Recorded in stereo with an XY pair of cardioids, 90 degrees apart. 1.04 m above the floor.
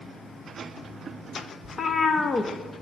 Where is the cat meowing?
45° left, 0.7 m.